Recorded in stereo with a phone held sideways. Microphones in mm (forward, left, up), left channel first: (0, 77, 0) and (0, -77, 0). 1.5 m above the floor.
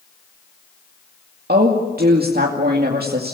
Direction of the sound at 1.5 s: 75° right (ahead or behind).